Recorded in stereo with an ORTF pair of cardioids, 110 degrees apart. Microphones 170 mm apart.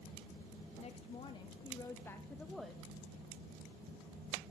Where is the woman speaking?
40° left, 1.6 m; by 2.9 s 5° right, 1.2 m.